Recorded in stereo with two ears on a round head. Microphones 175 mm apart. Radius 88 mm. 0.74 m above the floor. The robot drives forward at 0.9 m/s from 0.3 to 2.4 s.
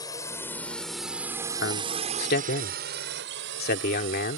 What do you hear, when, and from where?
0.0 s a drone: 20° left (ahead or behind); by 4.4 s 70° right (ahead or behind)
1.6 s a man speaking: 65° left (ahead or behind); by 4.4 s 55° left (ahead or behind)